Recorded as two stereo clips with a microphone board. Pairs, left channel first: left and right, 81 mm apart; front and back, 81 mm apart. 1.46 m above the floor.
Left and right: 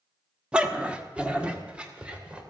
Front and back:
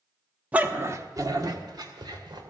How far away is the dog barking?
About 0.9 m.